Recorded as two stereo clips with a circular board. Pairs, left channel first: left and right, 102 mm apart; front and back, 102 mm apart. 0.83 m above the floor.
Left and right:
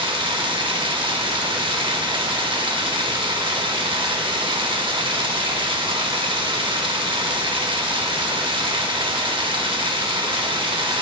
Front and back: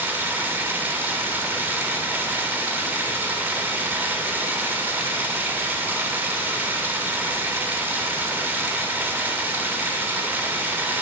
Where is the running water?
110° right, 0.7 m.